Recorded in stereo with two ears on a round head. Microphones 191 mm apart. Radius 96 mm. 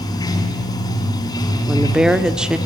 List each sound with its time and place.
0.0 s running water: 20° left (ahead or behind), 2.5 m
1.7 s a woman speaking: 5° right (ahead or behind), 0.9 m